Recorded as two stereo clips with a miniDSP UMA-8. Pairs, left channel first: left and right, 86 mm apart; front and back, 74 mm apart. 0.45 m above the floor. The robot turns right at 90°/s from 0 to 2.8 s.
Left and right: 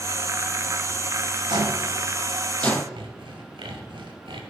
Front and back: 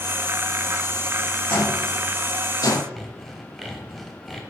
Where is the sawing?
90° right, 1.3 m.